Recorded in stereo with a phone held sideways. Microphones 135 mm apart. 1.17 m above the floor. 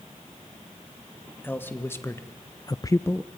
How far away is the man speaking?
About 2 m.